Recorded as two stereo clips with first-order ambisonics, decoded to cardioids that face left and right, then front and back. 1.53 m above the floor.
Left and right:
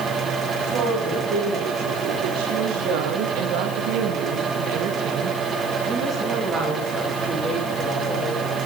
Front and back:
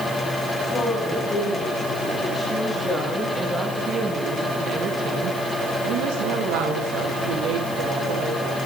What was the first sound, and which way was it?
A woman speaking, 65° right.